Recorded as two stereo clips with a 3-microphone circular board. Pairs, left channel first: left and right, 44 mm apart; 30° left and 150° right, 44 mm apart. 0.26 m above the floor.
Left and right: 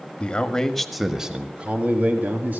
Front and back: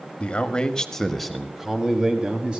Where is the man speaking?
60° left, 1.1 m; by 2.6 s 90° right, 1.6 m.